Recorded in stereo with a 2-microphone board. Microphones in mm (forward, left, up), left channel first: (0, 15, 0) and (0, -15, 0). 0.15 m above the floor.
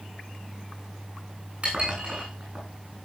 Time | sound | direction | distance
1.6 | dishes clattering | 40° right (ahead or behind) | 8.5 m